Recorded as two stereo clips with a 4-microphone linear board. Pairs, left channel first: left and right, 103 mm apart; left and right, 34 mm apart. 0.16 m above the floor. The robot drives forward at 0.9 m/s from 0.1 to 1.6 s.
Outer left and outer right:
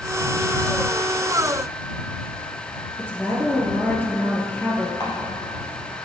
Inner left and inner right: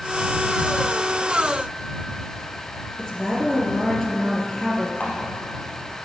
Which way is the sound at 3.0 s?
15° left (ahead or behind).